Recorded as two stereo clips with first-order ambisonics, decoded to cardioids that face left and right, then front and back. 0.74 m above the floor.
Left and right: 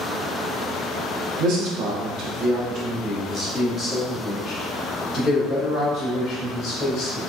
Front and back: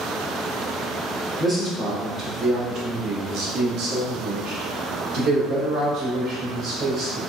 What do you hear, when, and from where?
1.4 s a man speaking: 100° right, 1.3 m; by 7.2 s 155° left, 2.5 m